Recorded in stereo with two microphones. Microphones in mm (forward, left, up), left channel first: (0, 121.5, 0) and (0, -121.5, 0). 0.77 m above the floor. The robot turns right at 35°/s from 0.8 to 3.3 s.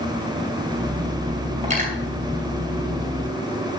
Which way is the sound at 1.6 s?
30° right (ahead or behind).